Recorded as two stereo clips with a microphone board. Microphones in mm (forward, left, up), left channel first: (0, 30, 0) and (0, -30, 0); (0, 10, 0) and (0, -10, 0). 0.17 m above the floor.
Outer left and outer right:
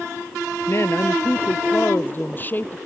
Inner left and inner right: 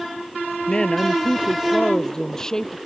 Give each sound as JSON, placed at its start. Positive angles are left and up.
{"t": 0.7, "sound": "a woman speaking", "side_deg": 45}